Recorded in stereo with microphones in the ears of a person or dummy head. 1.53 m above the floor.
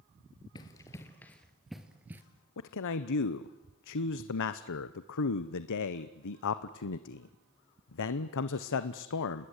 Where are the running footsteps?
20° left (ahead or behind), 2.0 m; by 2.2 s 10° right (ahead or behind), 1.9 m.